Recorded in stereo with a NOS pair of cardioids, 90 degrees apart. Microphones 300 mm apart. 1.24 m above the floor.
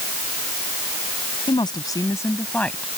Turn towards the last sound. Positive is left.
turn(degrees=0)